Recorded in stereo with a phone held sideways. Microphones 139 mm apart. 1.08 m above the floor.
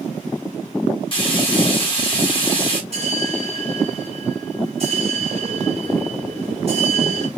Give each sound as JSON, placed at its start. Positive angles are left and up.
{"t": 1.1, "sound": "frying", "side_deg": 40, "distance_m": 3.0}
{"t": 2.9, "sound": "a bell", "side_deg": -45, "distance_m": 1.9}